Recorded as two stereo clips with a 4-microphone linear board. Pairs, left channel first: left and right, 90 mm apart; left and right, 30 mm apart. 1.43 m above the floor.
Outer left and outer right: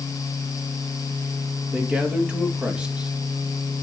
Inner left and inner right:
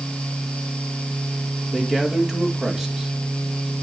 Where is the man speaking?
10° right (ahead or behind), 2.5 m.